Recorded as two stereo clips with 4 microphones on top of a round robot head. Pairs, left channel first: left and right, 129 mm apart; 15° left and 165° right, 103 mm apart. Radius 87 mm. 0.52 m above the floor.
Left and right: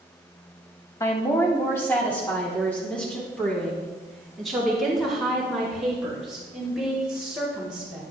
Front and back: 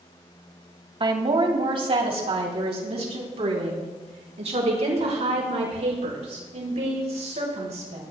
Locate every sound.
1.0 s a woman speaking: 160° left, 2.5 m; by 8.0 s 175° right, 6.5 m